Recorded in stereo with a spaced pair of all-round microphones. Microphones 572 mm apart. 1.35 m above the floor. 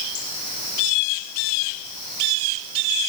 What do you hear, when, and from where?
Only background noise.